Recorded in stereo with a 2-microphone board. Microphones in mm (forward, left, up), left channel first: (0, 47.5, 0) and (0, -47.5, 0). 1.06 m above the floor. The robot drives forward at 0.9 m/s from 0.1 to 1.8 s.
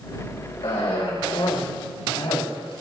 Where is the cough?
80° left, 4 m.